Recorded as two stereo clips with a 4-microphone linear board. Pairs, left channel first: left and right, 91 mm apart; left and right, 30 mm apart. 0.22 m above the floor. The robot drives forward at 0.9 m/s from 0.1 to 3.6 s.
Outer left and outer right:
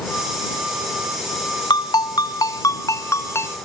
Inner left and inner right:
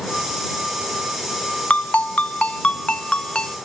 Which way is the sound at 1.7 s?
50° left (ahead or behind).